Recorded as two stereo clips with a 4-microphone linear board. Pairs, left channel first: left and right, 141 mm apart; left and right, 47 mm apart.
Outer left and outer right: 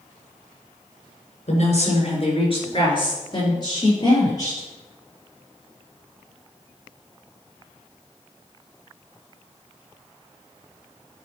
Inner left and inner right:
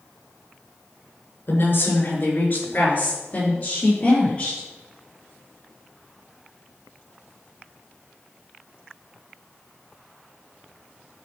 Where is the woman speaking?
50° left (ahead or behind), 3 m; by 4.6 s 25° left (ahead or behind), 6 m.